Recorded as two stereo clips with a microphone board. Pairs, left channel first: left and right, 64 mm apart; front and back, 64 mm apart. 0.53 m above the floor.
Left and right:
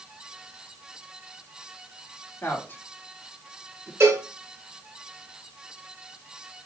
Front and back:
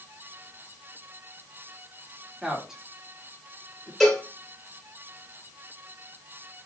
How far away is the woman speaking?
About 1.3 m.